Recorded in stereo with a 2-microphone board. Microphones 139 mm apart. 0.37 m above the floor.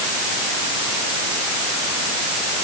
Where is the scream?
No scream in this recording.